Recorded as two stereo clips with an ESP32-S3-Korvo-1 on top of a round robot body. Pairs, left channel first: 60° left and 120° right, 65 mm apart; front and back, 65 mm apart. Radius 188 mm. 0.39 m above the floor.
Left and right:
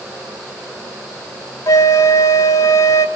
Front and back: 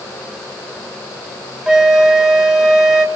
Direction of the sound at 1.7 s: 95° left.